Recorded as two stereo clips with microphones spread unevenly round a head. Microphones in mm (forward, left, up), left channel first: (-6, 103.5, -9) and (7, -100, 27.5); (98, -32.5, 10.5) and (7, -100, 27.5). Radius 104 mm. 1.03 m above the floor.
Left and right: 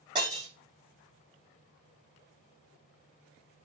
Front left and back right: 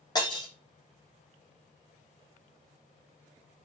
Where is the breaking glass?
20° right, 6.5 m.